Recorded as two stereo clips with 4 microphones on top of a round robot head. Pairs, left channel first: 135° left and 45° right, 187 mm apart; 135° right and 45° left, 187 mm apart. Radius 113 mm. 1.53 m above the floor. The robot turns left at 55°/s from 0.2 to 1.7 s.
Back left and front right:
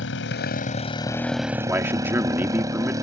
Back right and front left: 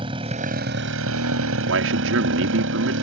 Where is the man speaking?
35° left.